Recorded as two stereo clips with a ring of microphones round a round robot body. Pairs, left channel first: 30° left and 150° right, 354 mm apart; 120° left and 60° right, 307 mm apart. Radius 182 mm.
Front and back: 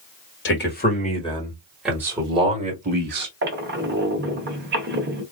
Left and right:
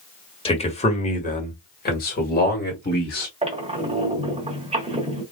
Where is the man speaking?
60° left, 1.8 m; by 3.3 s 165° left, 2 m.